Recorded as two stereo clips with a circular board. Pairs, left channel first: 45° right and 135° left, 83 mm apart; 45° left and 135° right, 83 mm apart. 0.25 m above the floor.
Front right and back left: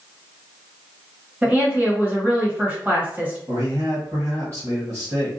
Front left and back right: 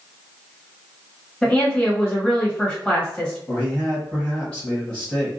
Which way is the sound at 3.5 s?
115° left.